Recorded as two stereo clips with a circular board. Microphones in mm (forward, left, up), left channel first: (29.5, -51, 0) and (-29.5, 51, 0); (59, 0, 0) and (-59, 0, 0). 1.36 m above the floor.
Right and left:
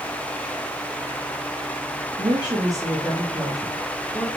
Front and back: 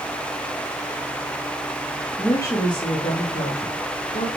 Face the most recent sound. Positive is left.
turn(degrees=20)